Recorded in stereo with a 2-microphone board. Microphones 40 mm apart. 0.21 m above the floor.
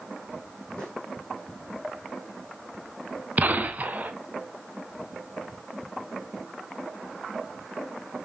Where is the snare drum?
20° left (ahead or behind), 4 m.